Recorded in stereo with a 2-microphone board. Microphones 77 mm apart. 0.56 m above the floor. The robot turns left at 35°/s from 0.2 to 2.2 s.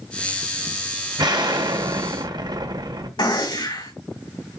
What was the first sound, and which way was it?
An explosion, 70° right.